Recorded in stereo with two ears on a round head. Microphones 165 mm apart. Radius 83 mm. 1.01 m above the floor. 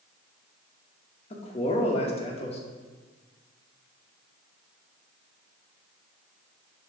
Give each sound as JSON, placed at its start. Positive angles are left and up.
{"t": 1.3, "sound": "a man speaking", "side_deg": 35, "distance_m": 1.0}